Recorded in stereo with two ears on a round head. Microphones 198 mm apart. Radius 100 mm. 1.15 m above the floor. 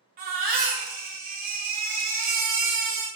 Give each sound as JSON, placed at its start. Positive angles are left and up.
{"t": 0.2, "sound": "a baby crying", "side_deg": -40, "distance_m": 0.6}